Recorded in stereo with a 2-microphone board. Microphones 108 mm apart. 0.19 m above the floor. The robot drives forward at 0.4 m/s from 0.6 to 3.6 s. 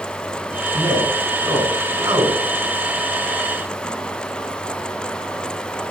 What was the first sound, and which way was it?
A man speaking, 25° right (ahead or behind).